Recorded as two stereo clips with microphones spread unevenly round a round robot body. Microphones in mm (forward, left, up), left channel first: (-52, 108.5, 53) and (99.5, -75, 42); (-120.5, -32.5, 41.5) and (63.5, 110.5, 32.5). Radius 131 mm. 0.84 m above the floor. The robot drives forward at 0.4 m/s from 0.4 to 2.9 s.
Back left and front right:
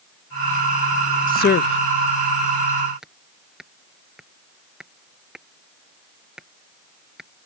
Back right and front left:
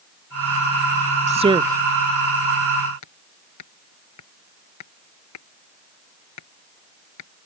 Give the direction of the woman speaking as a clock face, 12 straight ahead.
9 o'clock.